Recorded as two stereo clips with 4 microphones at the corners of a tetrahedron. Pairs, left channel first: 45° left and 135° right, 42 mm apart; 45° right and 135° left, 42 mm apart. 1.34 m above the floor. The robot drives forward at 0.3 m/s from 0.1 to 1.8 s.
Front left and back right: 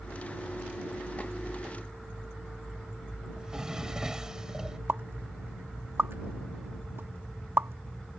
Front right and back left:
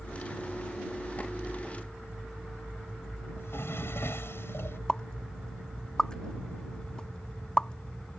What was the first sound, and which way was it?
A drawer, 60° right.